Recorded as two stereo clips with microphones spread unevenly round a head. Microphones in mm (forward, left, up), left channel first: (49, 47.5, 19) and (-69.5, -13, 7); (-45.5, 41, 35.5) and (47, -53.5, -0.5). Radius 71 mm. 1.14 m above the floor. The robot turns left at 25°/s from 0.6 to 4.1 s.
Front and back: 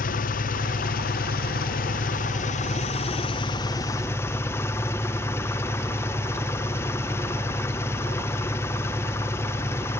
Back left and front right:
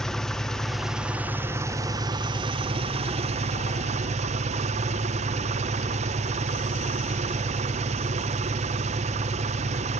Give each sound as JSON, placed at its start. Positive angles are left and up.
{"t": 0.0, "sound": "an engine running", "azimuth_deg": 40, "distance_m": 0.7}